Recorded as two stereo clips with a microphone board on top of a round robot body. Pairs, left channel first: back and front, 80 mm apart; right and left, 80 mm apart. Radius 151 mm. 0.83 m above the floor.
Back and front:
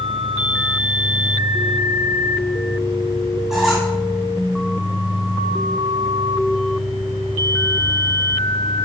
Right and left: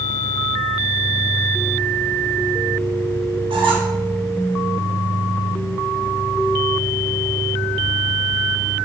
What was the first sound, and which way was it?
A squeak, 85° left.